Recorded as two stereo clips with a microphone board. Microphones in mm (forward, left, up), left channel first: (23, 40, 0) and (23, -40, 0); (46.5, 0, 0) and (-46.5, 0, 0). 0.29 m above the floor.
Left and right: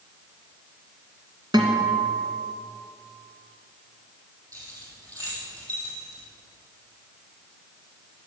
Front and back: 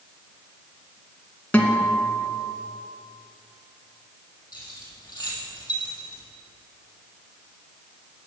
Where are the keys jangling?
50° right, 6.5 m.